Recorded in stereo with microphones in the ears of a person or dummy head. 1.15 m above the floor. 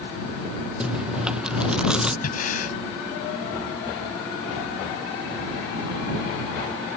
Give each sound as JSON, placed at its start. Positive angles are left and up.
{"t": 0.8, "sound": "chewing", "side_deg": 0}
{"t": 2.2, "sound": "breathing", "side_deg": 50}